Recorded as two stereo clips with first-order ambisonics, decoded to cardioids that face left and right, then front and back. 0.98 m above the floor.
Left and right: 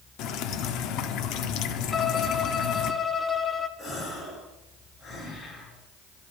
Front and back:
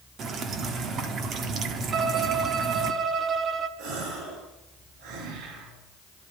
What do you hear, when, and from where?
0.2 s dripping: 125° left, 1.1 m
1.9 s a violin: 150° left, 0.8 m
3.8 s a gasp: 155° left, 3.5 m